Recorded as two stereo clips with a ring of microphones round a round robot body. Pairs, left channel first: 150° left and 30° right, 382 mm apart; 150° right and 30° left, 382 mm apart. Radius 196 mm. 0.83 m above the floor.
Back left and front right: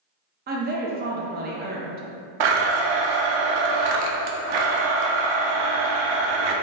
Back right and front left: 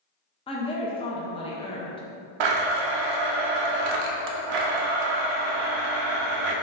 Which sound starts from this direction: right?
A woman speaking, at 0.5 s.